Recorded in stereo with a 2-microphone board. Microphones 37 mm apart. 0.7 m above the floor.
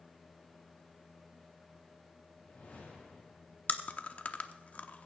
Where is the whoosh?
45° left (ahead or behind), 6.5 m.